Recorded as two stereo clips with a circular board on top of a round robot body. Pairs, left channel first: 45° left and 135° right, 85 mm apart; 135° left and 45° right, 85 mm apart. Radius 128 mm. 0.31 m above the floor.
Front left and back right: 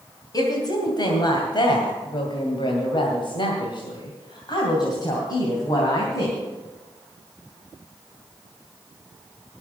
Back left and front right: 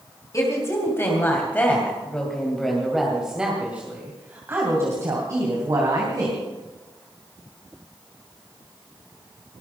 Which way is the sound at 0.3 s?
85° left.